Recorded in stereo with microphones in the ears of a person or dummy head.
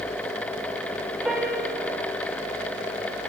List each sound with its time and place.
1.2 s a piano: 5° right (ahead or behind), 1.7 m